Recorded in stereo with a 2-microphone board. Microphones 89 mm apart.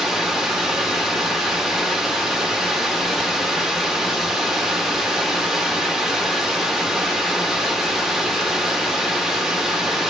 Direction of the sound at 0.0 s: Centre (ahead or behind).